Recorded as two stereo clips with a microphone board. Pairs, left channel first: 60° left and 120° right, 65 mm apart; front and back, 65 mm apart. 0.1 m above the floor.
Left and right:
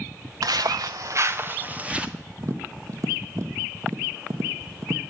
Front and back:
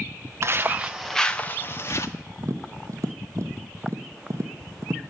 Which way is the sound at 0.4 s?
135° right.